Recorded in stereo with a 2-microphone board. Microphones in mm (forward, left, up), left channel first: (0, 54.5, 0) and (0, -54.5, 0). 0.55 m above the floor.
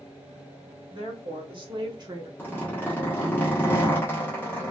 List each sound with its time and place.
0.9 s a woman speaking: 55° right (ahead or behind), 1.5 m; by 2.3 s 35° right (ahead or behind), 0.9 m
2.4 s a zipper: 20° left (ahead or behind), 1.3 m